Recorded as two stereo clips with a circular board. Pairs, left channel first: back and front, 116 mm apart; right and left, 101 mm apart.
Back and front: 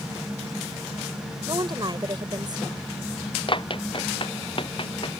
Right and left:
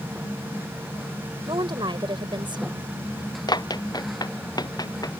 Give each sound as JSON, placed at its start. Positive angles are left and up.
{"t": 1.5, "sound": "a woman speaking", "azimuth_deg": 50}
{"t": 3.5, "sound": "running footsteps", "azimuth_deg": -135}